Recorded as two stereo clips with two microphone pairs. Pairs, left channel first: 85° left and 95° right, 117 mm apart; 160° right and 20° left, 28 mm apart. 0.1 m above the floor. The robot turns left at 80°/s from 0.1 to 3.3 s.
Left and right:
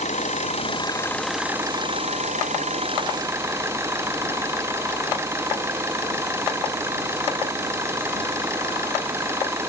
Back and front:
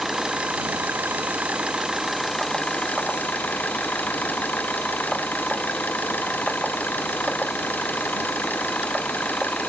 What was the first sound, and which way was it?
An engine running, 95° left.